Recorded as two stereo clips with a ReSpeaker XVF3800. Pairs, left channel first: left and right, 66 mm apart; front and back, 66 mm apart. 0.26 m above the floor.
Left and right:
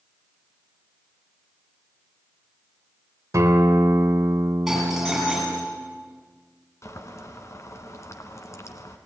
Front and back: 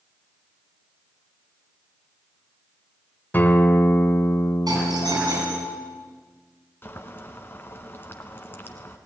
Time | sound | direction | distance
3.3 | a guitar | 60° right | 1.9 m
4.7 | a doorbell | 175° right | 8.5 m
6.8 | boiling | 55° left | 1.7 m